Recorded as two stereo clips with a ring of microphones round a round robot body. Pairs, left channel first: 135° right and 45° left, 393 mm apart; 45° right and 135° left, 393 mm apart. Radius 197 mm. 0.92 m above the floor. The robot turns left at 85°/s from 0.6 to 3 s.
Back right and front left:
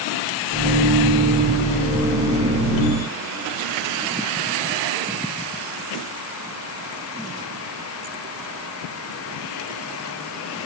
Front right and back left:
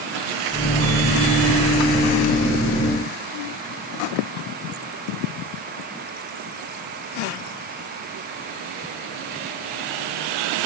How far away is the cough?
No cough in this recording.